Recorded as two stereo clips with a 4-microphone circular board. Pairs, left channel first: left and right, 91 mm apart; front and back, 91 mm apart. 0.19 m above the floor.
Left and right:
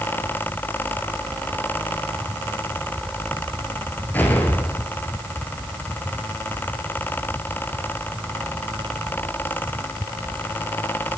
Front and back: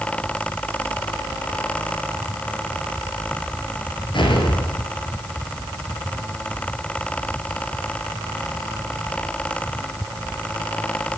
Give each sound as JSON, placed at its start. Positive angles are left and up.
{"t": 4.1, "sound": "an explosion", "azimuth_deg": 20, "distance_m": 2.0}